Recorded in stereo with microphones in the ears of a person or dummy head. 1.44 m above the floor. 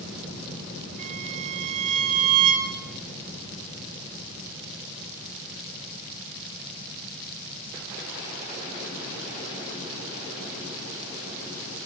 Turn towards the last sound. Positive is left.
turn(degrees=-40)  # may be behind; listen again after turning